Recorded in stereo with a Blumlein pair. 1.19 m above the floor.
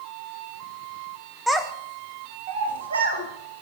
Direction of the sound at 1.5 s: Straight ahead.